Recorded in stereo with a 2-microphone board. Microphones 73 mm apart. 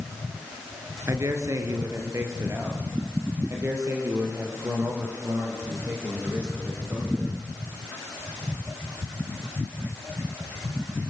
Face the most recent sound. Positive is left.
turn(degrees=-35)  # may be behind; listen again after turning